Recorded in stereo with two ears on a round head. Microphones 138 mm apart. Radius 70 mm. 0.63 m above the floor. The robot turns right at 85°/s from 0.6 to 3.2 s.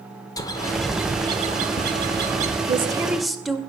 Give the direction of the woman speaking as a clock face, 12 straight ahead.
1 o'clock.